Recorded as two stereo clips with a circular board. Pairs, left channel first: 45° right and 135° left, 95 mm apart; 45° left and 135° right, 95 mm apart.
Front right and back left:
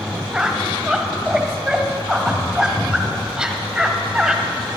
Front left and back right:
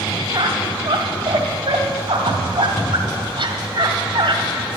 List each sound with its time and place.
0.3 s a squeak: 140° right, 1.8 m